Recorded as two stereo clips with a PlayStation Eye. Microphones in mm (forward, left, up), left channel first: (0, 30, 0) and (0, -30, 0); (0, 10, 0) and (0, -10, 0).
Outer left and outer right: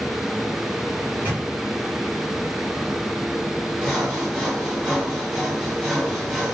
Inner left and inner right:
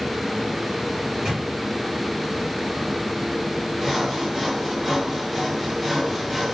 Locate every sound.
1.0 s a microwave: 35° right (ahead or behind), 2.5 m
3.8 s sawing: 5° right (ahead or behind), 1.8 m